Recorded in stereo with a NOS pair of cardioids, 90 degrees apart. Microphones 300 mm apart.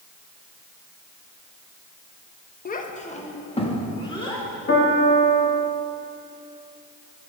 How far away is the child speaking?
About 0.7 m.